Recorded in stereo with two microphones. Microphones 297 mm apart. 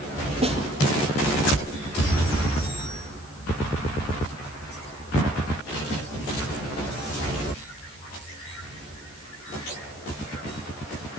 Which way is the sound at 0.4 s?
20° right (ahead or behind).